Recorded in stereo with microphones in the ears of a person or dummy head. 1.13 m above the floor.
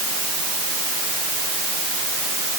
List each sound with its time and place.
Only background noise.